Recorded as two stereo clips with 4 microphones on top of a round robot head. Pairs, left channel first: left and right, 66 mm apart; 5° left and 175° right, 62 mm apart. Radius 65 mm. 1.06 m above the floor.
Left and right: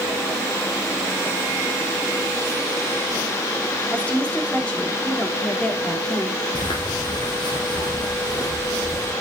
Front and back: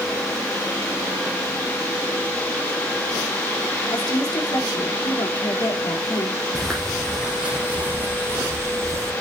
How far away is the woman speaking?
About 3 m.